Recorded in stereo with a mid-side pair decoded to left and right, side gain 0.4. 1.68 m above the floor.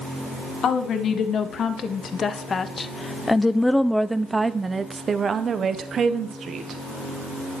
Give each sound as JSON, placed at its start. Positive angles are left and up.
{"t": 0.6, "sound": "a woman speaking", "azimuth_deg": 65, "distance_m": 2.0}